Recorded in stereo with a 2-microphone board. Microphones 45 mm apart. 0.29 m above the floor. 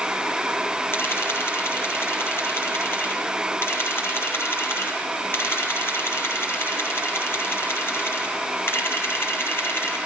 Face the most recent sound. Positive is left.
turn(degrees=55)  # may be behind; listen again after turning